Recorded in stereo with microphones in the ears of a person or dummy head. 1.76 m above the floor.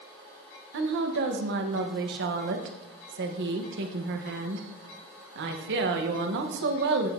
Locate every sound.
0.7 s a woman speaking: 55° right (ahead or behind), 1.2 m